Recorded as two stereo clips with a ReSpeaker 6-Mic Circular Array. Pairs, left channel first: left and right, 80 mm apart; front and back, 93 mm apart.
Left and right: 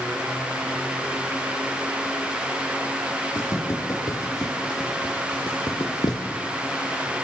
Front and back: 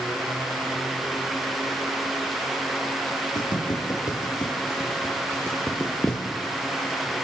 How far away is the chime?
I don't hear a chime.